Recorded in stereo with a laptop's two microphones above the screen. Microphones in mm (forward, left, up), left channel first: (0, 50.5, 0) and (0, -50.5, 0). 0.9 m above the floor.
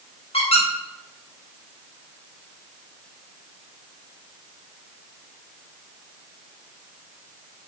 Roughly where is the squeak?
Left.